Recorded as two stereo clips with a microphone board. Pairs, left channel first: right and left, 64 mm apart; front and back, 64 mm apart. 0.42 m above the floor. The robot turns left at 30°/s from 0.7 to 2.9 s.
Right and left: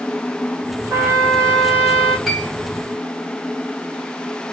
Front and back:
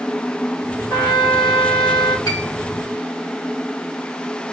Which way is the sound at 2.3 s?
5° left.